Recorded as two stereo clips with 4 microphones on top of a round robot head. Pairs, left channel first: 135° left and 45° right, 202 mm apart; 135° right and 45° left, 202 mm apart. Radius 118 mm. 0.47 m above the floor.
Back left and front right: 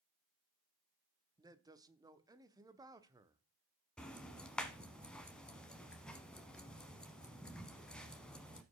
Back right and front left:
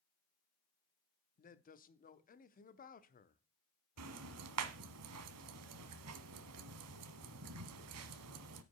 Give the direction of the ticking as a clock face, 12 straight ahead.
10 o'clock.